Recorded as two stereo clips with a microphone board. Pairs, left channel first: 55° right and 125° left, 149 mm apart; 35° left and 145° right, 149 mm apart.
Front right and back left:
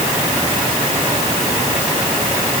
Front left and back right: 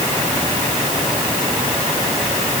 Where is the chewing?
No chewing in this recording.